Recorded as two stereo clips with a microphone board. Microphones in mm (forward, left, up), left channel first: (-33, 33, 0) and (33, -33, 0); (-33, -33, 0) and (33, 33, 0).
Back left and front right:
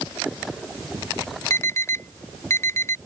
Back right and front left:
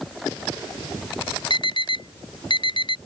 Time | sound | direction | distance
1.5 | an alarm | 165° right | ?